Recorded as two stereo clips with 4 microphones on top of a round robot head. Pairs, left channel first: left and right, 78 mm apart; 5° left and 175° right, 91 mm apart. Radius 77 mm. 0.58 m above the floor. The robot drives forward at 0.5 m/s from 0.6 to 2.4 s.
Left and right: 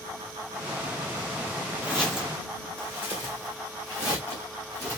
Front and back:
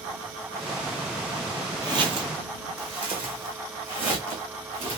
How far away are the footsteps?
About 0.6 m.